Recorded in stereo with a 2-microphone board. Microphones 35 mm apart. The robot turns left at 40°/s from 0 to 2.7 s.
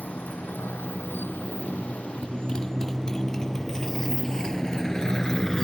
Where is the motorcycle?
60° left (ahead or behind); by 5.7 s 15° left (ahead or behind).